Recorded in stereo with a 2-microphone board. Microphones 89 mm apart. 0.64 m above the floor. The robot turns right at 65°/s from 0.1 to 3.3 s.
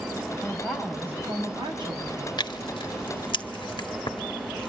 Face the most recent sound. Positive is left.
turn(degrees=65)  # may be behind; listen again after turning